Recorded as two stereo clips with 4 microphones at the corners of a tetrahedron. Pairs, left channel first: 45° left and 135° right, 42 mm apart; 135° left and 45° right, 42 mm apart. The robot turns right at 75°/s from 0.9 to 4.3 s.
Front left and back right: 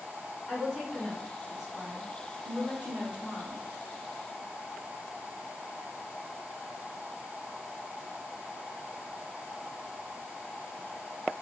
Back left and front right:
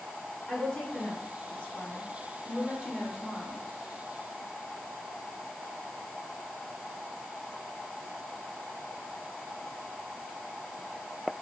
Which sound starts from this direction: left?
A woman speaking, at 0.5 s.